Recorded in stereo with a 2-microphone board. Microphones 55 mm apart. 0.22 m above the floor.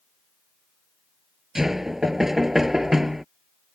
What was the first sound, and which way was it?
Knocking, 5° right (ahead or behind).